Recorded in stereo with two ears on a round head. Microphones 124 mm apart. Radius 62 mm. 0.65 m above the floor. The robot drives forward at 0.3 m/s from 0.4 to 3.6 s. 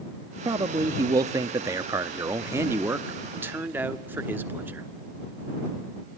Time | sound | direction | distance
0.5 | a man speaking | 25° right (ahead or behind) | 0.6 m